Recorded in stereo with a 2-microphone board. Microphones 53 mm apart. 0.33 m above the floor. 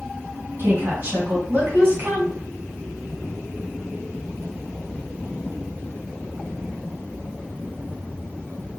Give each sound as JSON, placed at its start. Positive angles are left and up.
{"t": 0.6, "sound": "a woman speaking", "side_deg": -45, "distance_m": 1.9}